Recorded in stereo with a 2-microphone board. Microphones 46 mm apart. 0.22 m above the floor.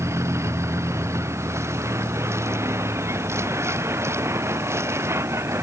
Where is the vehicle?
85° right; by 5.6 s 70° right (ahead or behind).